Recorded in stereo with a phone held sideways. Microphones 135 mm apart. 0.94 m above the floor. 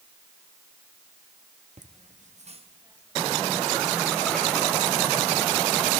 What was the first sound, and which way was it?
Laughter, 65° right (ahead or behind).